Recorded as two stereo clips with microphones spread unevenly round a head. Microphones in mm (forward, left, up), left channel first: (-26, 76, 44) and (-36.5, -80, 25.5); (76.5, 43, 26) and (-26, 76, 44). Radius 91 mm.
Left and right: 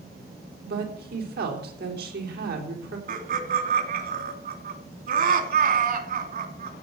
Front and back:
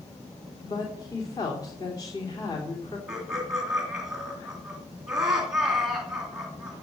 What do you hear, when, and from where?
0.6 s a woman speaking: 80° right, 3.5 m
3.1 s laughter: 110° right, 2.5 m